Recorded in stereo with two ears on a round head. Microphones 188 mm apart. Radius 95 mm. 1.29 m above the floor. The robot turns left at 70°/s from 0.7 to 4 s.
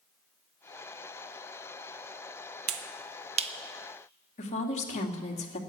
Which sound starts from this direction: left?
A woman speaking, at 4.4 s.